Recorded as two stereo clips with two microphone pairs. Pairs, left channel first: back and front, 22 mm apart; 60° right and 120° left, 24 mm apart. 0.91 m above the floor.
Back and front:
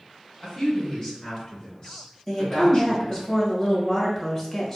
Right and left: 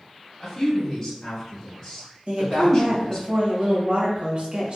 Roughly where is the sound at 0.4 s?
Behind right.